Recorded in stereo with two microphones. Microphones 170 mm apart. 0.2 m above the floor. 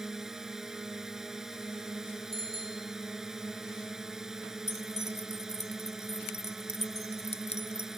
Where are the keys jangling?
45° left (ahead or behind).